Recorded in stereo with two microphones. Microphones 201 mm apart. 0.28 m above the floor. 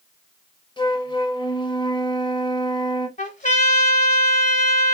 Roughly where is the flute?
Left.